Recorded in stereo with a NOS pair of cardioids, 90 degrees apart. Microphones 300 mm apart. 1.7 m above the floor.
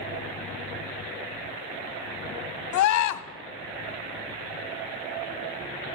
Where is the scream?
70° left, 1.2 m.